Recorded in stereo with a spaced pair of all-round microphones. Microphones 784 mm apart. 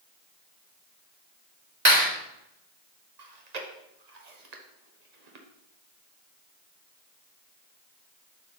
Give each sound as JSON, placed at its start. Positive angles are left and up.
{"t": 1.9, "sound": "a clap", "side_deg": -40, "distance_m": 5.0}
{"t": 3.2, "sound": "chewing", "side_deg": -55, "distance_m": 1.2}